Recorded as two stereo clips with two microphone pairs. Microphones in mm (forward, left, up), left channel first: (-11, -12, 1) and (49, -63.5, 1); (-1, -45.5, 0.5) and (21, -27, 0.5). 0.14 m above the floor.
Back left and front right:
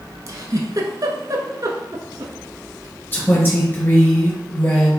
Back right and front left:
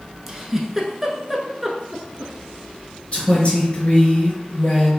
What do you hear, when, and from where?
0.3 s a giggle: 40° right, 0.8 m
3.1 s a woman speaking: 170° right, 2 m